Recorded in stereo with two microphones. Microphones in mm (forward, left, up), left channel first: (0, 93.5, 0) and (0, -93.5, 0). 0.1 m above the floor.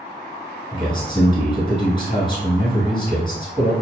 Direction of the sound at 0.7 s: 25° left (ahead or behind).